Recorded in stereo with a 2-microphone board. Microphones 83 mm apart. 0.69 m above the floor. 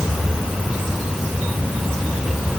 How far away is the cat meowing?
I don't hear a cat meowing.